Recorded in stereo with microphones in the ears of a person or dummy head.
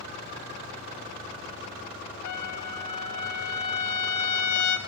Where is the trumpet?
50° left (ahead or behind), 1.0 m.